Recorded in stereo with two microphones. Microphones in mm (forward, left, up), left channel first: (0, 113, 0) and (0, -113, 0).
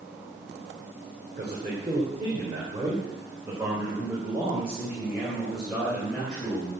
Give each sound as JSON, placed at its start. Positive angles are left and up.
{"t": 1.4, "sound": "a man speaking", "side_deg": -30, "distance_m": 4.0}